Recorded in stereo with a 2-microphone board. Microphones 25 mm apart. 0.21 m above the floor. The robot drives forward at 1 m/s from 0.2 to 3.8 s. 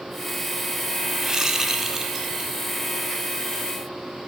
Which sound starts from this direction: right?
A whoosh, at 1.2 s.